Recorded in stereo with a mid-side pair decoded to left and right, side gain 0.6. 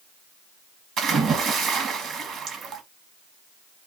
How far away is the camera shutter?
I don't hear a camera shutter.